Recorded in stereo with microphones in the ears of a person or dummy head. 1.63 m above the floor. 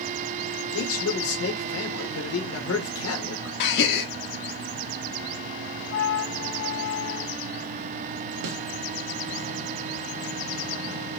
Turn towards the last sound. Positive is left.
turn(degrees=-85)